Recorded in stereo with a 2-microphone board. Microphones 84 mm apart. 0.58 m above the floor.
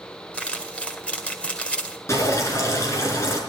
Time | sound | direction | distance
0.3 | crumpling | 15° left (ahead or behind) | 1.8 m
2.1 | dripping | 35° left (ahead or behind) | 4 m